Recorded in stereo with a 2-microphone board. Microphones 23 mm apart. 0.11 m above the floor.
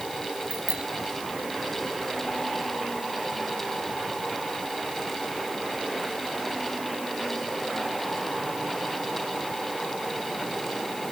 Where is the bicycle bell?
65° right (ahead or behind).